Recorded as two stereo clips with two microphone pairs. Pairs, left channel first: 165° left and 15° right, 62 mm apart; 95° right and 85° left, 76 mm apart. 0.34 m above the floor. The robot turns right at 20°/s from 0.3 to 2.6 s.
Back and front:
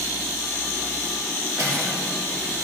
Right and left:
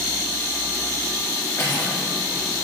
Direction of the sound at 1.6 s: 45° right.